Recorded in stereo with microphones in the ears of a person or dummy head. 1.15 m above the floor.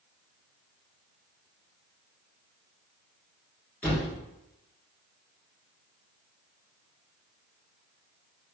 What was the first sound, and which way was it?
A thud, 10° left (ahead or behind).